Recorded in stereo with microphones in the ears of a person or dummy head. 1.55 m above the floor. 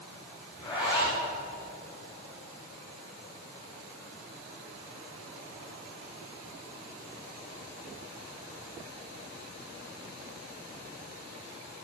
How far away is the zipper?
About 7 m.